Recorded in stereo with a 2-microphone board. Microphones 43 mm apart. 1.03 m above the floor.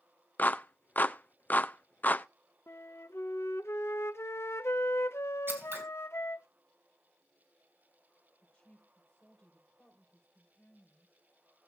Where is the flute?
75° left (ahead or behind), 0.7 m.